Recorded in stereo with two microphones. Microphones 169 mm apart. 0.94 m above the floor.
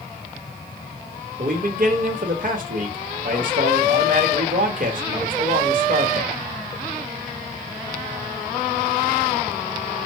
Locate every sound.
1.4 s a man speaking: 55° right (ahead or behind), 1.2 m